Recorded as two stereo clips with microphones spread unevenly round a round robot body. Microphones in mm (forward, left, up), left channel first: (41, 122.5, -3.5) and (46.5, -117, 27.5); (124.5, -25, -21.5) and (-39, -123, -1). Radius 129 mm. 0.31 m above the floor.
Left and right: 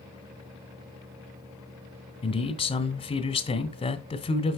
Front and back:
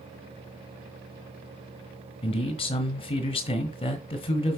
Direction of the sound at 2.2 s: 55° left.